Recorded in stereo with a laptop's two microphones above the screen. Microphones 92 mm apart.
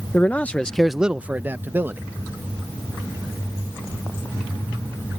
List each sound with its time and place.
0.1 s a man speaking: 20° left (ahead or behind); by 2.0 s 20° right (ahead or behind)